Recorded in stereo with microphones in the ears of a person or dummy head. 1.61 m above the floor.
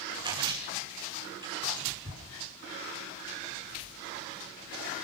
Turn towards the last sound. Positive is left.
turn(degrees=-25)  # may be behind; listen again after turning